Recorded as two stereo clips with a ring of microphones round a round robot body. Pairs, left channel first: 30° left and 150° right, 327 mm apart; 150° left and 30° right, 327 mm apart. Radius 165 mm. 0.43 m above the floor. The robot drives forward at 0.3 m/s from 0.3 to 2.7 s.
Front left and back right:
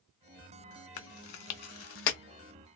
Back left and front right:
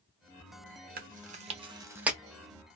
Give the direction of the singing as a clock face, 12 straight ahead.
I don't hear singing.